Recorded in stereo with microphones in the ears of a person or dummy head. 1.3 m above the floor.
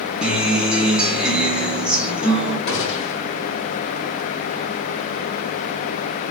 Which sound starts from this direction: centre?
A guitar, at 0.2 s.